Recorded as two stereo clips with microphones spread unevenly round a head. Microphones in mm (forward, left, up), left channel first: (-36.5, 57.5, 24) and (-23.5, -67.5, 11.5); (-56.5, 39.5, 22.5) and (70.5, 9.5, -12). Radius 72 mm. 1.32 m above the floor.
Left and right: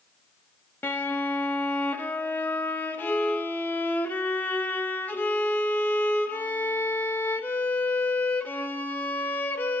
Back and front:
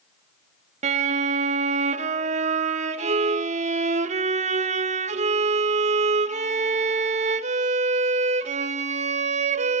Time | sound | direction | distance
0.8 | a violin | 25° left | 0.7 m